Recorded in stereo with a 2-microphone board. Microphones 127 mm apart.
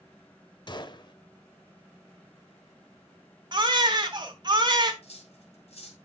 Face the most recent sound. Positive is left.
turn(degrees=55)  # may be behind; listen again after turning